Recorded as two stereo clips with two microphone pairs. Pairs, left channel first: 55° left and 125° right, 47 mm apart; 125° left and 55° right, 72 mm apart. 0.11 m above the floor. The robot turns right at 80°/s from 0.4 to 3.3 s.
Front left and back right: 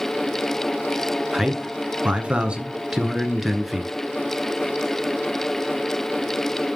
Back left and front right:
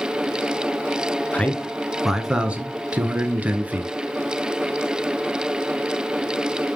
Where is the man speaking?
165° left, 1.1 m; by 3.9 s 40° right, 1.1 m.